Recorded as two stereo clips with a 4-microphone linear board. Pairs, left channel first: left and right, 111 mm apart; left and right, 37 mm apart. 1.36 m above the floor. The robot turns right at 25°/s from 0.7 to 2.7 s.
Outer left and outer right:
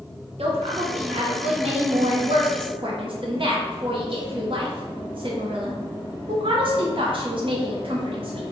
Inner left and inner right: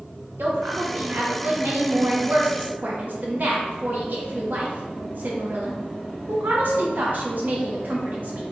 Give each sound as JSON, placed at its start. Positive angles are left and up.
{"t": 0.4, "sound": "a woman speaking", "azimuth_deg": -105, "distance_m": 0.9}